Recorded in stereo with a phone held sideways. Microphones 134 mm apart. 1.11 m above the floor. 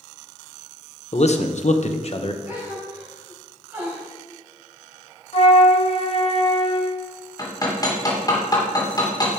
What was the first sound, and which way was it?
A man speaking, 50° left (ahead or behind).